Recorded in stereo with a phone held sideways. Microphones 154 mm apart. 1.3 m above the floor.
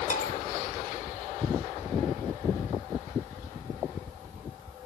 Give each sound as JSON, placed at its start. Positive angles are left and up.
{"t": 0.1, "sound": "a bell", "side_deg": 60, "distance_m": 1.6}